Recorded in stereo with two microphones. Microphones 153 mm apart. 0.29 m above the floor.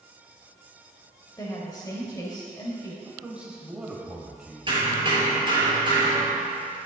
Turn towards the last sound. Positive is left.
turn(degrees=-35)  # may be behind; listen again after turning